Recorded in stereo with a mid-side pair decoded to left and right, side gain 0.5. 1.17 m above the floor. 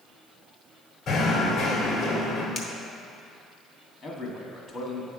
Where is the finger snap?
45° left, 1.3 m.